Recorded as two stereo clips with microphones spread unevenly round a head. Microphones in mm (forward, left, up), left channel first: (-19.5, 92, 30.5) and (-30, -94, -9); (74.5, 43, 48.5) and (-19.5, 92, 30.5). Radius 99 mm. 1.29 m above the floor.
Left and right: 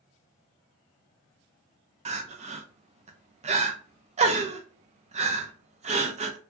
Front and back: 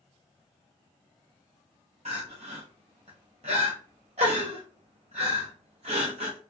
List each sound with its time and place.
2.0 s crying: 150° right, 0.5 m